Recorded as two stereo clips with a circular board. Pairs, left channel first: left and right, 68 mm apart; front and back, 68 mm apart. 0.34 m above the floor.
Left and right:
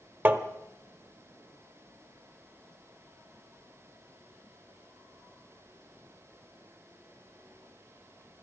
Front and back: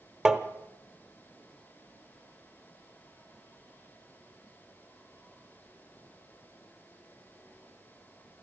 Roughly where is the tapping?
Right.